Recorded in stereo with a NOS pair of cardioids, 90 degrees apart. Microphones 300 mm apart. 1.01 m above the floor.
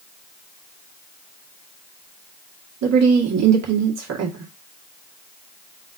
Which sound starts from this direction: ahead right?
A woman speaking, at 2.8 s.